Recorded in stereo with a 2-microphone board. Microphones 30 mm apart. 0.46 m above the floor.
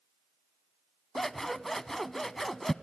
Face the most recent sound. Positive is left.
turn(degrees=10)  # may be behind; listen again after turning